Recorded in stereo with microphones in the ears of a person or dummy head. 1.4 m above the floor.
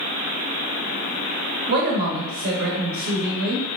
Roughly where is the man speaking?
Right.